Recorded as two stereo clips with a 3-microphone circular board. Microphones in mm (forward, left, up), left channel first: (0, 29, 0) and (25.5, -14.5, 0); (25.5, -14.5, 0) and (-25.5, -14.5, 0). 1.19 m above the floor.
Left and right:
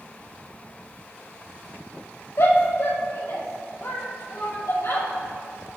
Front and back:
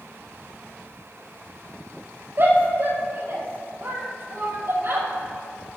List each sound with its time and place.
2.4 s a shout: 145° left, 6.5 m